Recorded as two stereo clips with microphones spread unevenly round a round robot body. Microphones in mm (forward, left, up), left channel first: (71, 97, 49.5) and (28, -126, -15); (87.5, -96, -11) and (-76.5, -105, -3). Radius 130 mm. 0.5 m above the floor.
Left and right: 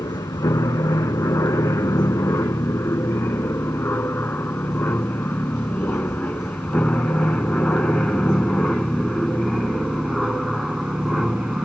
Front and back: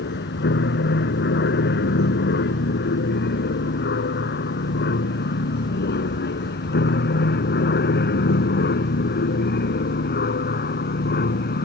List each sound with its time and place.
0.0 s an aircraft: 5° left; by 11.7 s 15° right